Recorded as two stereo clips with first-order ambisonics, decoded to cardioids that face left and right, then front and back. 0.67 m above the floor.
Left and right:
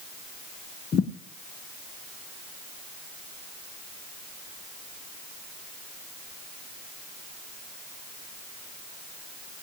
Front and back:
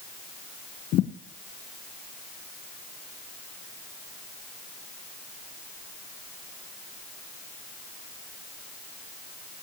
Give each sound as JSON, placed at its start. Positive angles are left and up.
{"t": 0.9, "sound": "a thud", "azimuth_deg": 35, "distance_m": 1.1}